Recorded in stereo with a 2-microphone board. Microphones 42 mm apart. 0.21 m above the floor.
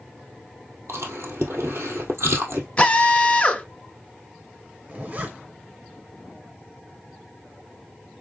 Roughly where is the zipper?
Right.